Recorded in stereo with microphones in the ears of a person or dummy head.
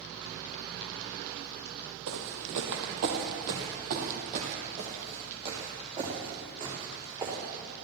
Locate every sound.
2.1 s footsteps: 65° right (ahead or behind), 4 m; by 7.4 s 20° right (ahead or behind), 7 m